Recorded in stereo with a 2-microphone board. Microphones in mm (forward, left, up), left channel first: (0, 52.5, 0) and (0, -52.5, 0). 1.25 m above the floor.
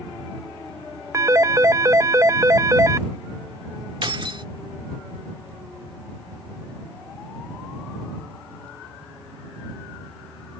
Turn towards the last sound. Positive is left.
turn(degrees=-55)  # may be behind; listen again after turning